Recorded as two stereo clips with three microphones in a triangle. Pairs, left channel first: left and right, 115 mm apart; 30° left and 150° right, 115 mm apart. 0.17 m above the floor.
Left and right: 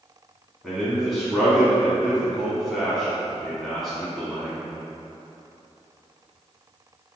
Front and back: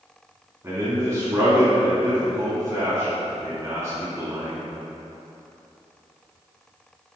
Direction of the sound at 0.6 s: 175° left.